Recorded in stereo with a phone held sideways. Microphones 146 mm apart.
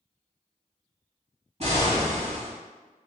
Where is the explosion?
45° right (ahead or behind), 1.3 m.